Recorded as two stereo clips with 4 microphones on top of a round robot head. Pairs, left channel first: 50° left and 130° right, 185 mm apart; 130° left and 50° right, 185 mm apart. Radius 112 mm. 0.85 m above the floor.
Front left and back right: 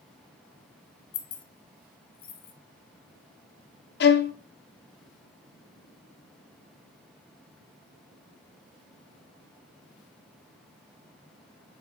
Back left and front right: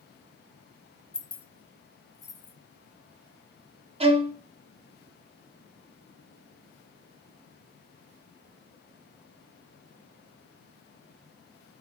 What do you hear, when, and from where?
1.1 s keys jangling: 45° left, 0.9 m; by 2.5 s 60° left, 2.0 m
4.0 s a violin: 15° left, 0.9 m